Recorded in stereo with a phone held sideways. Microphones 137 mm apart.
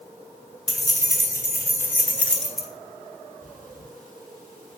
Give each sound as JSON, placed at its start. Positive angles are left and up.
{"t": 0.7, "sound": "keys jangling", "side_deg": 25, "distance_m": 2.0}
{"t": 3.4, "sound": "breathing", "side_deg": -70, "distance_m": 4.5}